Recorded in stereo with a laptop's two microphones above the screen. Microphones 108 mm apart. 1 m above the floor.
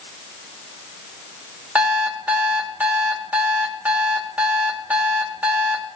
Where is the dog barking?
I don't hear a dog barking.